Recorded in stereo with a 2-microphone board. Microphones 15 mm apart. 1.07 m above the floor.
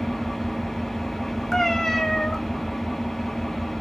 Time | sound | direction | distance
0.0 | an engine running | 45° left (ahead or behind) | 1.1 m
1.5 | a cat meowing | 35° left (ahead or behind) | 0.7 m